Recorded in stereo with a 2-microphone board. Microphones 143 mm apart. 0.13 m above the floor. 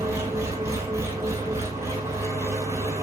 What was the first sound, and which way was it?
An engine running, 20° right (ahead or behind).